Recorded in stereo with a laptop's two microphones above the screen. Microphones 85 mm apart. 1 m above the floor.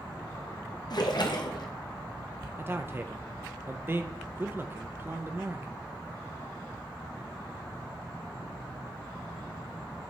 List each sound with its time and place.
0.9 s a splash: 55° left (ahead or behind), 1.0 m
2.6 s a man speaking: 25° right (ahead or behind), 0.7 m